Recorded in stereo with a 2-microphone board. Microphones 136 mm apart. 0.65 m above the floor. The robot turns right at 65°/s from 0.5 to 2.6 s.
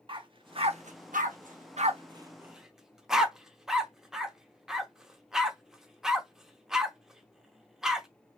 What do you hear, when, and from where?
0.1 s a dog barking: 40° right (ahead or behind), 0.6 m; by 8.1 s 5° right (ahead or behind), 0.6 m